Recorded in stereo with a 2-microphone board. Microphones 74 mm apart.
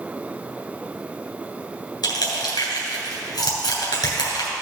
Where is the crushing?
70° left (ahead or behind), 2.5 m.